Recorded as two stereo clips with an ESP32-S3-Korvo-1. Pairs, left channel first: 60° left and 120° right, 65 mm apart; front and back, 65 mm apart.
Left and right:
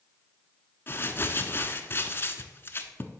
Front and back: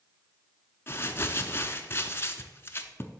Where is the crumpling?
25° left, 0.5 m.